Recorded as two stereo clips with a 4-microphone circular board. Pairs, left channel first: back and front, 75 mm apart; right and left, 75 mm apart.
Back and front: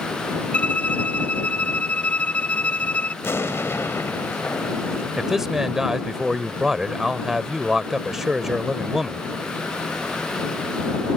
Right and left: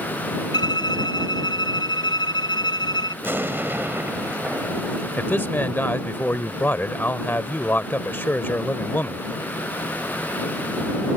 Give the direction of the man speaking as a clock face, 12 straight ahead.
3 o'clock.